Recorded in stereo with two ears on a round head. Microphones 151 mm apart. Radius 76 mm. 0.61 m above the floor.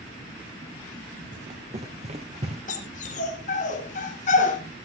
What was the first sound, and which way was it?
Running footsteps, 50° right (ahead or behind).